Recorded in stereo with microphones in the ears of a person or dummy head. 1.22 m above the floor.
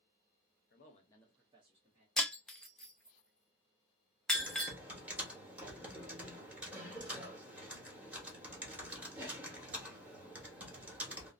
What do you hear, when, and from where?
0.7 s a man speaking: 50° left (ahead or behind), 0.7 m; by 2.1 s 45° right (ahead or behind), 1.0 m
2.2 s breaking glass: centre (ahead or behind), 0.5 m
4.3 s typing on a keyboard: 10° right (ahead or behind), 1.0 m